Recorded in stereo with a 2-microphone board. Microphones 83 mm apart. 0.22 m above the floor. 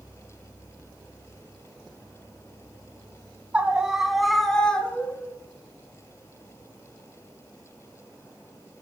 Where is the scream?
15° right (ahead or behind), 2 m; by 5.3 s 20° left (ahead or behind), 3 m.